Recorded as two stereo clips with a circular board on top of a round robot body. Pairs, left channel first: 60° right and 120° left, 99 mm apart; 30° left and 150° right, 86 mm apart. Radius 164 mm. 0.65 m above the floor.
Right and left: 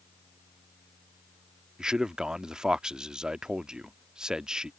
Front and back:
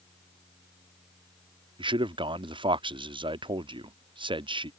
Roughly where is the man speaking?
Behind.